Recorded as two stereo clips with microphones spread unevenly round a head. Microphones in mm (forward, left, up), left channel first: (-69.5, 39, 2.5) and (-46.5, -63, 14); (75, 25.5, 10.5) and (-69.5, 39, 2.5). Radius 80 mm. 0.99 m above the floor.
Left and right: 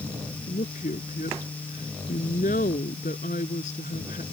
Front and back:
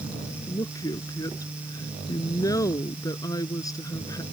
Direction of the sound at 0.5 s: 60° left.